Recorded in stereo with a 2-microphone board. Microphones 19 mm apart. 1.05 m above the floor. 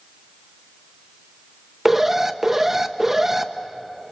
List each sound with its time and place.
1.9 s an alarm: 15° right (ahead or behind), 0.9 m